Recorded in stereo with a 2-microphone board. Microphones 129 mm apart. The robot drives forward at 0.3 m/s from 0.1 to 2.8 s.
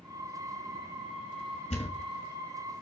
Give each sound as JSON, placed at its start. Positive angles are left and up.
{"t": 1.7, "sound": "a thud", "side_deg": 70, "distance_m": 1.9}